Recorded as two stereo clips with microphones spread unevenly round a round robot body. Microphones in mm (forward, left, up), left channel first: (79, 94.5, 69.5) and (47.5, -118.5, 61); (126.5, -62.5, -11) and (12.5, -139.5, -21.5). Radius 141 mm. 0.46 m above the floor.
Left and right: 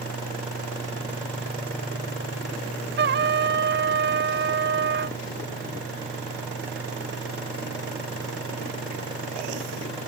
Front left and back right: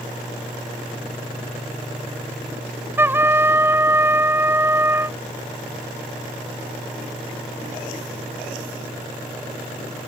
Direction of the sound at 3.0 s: 75° right.